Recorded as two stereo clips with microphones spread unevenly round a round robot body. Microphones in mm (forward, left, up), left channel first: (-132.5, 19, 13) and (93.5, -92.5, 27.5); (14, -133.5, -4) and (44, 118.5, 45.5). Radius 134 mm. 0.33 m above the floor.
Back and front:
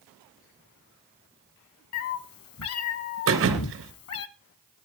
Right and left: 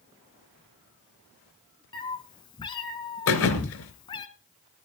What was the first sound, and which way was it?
A cat meowing, 170° right.